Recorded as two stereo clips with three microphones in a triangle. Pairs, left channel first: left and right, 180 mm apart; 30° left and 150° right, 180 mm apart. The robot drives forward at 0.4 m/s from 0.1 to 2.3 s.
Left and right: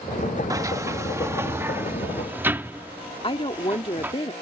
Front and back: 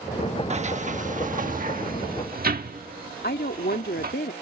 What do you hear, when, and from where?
0.5 s a sliding door: 150° right; by 4.1 s 165° right
3.2 s a woman speaking: 35° left